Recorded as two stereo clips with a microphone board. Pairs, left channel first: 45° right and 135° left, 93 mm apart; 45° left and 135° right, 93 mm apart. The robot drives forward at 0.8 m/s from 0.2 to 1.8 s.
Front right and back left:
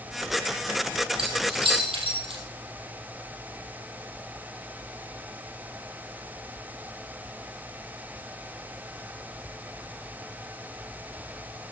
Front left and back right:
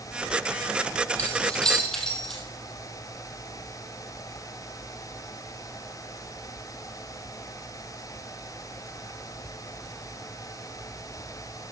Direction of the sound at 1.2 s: 120° left.